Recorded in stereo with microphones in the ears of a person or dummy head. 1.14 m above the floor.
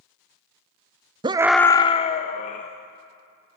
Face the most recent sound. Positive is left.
turn(degrees=40)  # may be behind; listen again after turning